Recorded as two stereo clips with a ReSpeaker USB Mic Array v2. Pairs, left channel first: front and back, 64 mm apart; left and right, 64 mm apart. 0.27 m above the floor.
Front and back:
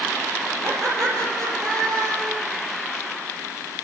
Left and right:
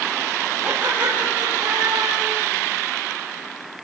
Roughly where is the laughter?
Behind.